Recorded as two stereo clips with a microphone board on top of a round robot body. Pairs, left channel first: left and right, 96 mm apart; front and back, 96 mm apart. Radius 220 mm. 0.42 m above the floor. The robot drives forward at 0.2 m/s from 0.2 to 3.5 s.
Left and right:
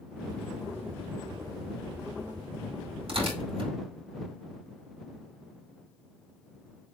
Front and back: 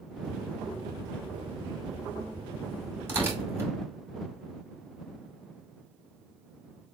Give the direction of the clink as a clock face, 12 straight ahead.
No clink in this recording.